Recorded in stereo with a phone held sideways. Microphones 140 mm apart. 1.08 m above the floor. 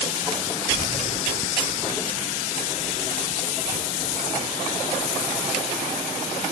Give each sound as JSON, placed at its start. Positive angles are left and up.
{"t": 0.7, "sound": "keys jangling", "side_deg": 80, "distance_m": 0.7}